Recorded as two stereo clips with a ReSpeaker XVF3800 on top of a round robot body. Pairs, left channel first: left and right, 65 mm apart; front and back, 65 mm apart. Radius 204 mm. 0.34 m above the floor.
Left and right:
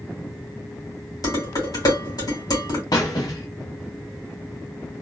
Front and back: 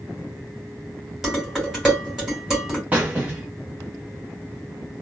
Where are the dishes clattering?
95° left, 2.5 m.